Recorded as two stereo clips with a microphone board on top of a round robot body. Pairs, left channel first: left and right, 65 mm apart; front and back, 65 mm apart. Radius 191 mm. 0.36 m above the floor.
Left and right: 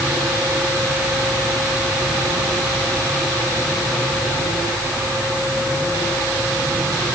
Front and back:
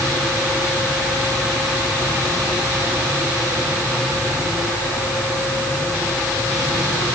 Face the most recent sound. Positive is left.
No sound to turn to.